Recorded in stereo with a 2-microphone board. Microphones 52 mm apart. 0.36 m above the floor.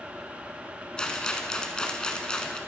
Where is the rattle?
15° left (ahead or behind), 0.9 m.